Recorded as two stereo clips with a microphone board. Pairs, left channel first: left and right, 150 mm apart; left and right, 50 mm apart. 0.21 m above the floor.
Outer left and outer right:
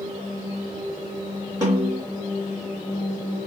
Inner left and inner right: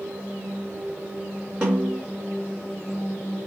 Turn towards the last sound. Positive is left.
turn(degrees=-20)  # may be behind; listen again after turning